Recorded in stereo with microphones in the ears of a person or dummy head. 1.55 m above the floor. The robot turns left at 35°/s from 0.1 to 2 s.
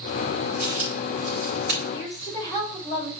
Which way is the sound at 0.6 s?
70° right (ahead or behind).